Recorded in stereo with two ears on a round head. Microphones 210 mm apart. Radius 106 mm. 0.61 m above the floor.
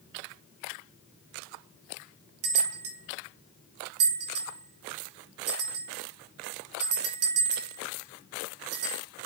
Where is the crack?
No crack in this recording.